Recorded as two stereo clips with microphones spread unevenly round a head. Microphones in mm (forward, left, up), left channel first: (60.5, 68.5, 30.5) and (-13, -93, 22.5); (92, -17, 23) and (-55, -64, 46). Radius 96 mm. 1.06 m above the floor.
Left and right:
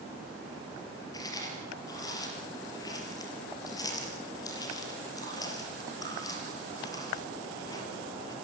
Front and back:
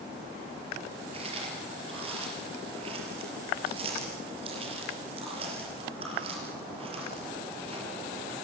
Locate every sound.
1.1 s chewing: 140° left, 4.5 m